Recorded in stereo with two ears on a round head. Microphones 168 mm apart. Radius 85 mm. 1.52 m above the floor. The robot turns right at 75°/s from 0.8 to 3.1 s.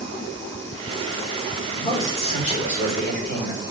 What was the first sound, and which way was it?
A man speaking, 15° left.